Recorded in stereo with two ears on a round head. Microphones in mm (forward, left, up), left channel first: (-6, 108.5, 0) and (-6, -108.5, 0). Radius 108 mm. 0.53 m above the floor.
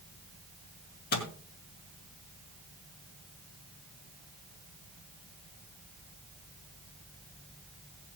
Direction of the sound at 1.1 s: 40° left (ahead or behind).